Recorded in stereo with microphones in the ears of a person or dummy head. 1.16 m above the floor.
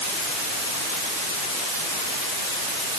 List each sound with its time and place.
Only background noise.